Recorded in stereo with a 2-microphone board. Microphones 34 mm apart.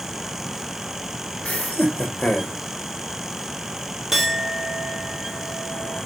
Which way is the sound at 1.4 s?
45° left (ahead or behind).